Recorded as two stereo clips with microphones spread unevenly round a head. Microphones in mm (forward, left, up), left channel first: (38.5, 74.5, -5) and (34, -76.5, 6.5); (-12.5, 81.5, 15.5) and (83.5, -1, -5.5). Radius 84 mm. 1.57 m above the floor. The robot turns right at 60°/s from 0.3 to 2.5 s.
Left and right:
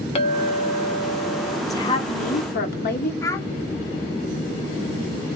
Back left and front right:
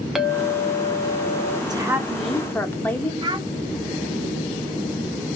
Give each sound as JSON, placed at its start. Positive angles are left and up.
{"t": 0.1, "sound": "a clink", "azimuth_deg": 55, "distance_m": 0.7}
{"t": 1.7, "sound": "a woman speaking", "azimuth_deg": 20, "distance_m": 1.0}
{"t": 3.2, "sound": "a child speaking", "azimuth_deg": 15, "distance_m": 0.8}